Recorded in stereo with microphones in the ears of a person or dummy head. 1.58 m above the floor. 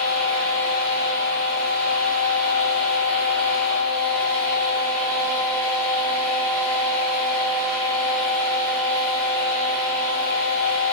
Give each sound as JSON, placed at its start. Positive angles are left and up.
{"t": 0.0, "sound": "a fan", "side_deg": -45, "distance_m": 2.5}